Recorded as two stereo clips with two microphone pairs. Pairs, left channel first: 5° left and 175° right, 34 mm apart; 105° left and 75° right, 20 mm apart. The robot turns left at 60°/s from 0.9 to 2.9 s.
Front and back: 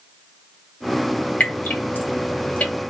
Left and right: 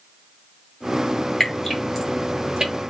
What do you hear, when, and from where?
1.4 s dripping: 45° left, 1.5 m; by 2.7 s 35° right, 1.5 m